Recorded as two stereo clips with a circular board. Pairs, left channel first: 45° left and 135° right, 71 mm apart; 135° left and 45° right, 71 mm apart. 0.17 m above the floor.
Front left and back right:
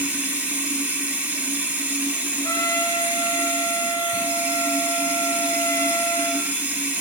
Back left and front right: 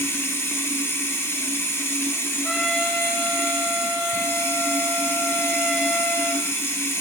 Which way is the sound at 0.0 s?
170° left.